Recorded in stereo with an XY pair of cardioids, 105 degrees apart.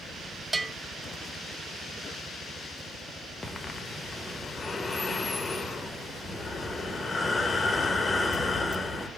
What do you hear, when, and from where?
0.5 s a bell: 25° right, 0.6 m
3.4 s breathing: 25° left, 0.8 m